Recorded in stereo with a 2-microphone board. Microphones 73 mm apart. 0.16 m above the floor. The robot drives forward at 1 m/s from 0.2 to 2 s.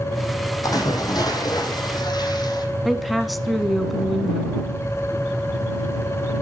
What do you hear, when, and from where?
0.6 s a splash: 60° left (ahead or behind), 4.5 m; by 2.6 s 75° left (ahead or behind), 4 m
2.9 s a woman speaking: centre (ahead or behind), 1.1 m